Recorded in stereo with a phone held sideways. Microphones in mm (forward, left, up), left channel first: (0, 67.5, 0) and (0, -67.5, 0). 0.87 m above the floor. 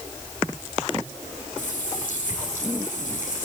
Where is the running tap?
90° left, 9 m.